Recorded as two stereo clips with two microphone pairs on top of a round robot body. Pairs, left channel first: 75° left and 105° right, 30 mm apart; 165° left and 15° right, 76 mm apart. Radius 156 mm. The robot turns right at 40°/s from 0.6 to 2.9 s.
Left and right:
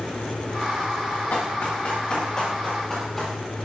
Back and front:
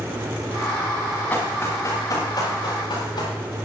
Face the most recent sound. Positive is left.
turn(degrees=150)